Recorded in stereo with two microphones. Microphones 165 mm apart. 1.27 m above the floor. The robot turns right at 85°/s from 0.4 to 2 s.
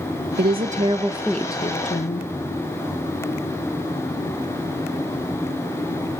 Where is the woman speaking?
75° right, 1.1 m; by 2.3 s 60° left, 1.1 m.